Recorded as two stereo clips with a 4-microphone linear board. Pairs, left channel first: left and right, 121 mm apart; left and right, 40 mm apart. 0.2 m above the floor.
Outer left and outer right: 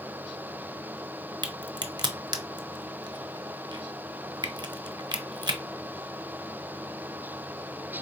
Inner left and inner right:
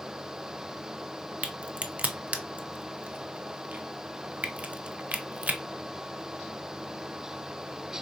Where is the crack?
40° right (ahead or behind), 0.6 m.